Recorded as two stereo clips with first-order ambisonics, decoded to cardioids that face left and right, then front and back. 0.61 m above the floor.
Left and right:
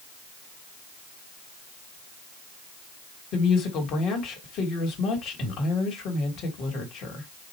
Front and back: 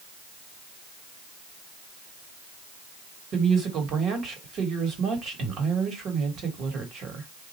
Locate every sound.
3.3 s a woman speaking: 135° left, 1.3 m